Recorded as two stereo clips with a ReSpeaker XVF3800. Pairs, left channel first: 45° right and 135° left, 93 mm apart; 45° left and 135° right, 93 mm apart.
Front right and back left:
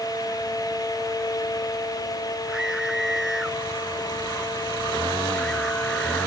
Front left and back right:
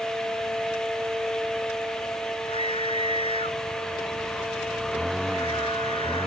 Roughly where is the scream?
Ahead left.